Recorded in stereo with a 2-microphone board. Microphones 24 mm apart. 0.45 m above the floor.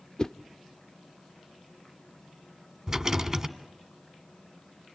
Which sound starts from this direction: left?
A whoosh, at 0.2 s.